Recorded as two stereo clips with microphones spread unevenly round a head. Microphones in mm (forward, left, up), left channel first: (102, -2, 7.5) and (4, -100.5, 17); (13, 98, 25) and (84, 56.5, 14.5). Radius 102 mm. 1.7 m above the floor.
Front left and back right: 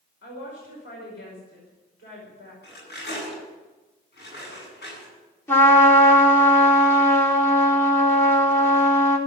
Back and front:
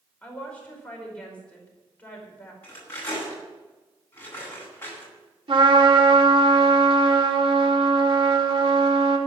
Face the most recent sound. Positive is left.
turn(degrees=-25)